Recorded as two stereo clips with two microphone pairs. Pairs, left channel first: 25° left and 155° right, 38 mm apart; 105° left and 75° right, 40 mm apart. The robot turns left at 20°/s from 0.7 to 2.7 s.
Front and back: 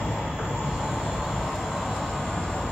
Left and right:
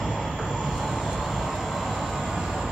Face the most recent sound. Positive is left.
turn(degrees=-15)